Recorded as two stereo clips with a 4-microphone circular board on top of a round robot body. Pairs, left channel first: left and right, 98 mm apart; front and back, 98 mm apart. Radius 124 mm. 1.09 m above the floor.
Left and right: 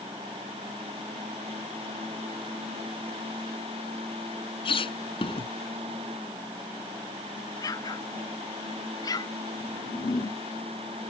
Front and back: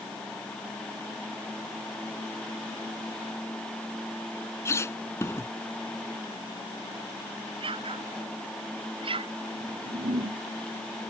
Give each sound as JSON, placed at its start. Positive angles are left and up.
{"t": 4.7, "sound": "a squeak", "azimuth_deg": 60}
{"t": 7.6, "sound": "an explosion", "azimuth_deg": 145}
{"t": 9.6, "sound": "a whoosh", "azimuth_deg": 145}